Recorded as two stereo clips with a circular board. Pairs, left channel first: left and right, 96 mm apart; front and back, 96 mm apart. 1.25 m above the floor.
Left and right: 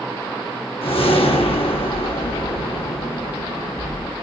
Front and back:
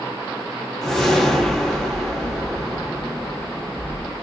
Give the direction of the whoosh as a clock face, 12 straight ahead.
9 o'clock.